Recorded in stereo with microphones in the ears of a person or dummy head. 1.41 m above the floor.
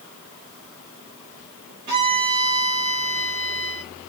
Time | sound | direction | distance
1.9 | a violin | 45° right (ahead or behind) | 2.5 m